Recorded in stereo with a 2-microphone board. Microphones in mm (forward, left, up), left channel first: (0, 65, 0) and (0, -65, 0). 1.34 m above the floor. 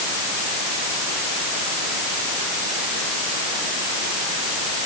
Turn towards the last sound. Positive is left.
No sound to turn to.